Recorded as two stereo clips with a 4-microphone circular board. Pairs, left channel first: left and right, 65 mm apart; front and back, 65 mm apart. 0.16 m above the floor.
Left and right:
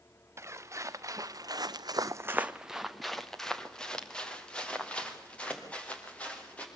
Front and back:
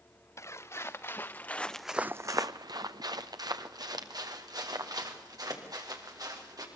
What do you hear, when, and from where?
0.4 s footsteps: 40° right, 2 m; by 6.7 s 160° left, 6 m